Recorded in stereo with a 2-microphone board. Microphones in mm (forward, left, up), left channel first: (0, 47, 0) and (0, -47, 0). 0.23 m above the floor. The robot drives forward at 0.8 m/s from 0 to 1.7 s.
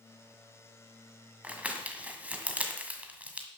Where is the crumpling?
15° right (ahead or behind), 1.8 m.